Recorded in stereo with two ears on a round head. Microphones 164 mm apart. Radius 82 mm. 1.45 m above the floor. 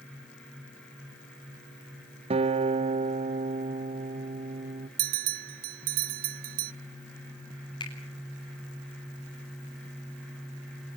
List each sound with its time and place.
2.3 s a guitar: 35° right (ahead or behind), 0.9 m
5.0 s a bell: 50° right (ahead or behind), 0.7 m
7.8 s a finger snap: 25° left (ahead or behind), 8 m